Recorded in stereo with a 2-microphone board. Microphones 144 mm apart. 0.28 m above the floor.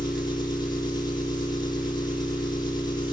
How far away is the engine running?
About 2.0 m.